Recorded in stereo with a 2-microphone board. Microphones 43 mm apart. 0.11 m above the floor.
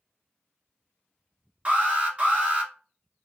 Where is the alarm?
30° right (ahead or behind), 1.7 m.